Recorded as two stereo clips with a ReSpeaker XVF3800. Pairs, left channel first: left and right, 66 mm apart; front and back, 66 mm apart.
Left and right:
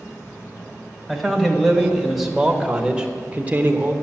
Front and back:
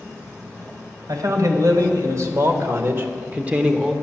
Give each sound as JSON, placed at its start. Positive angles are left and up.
{"t": 1.1, "sound": "a man speaking", "azimuth_deg": 175, "distance_m": 2.0}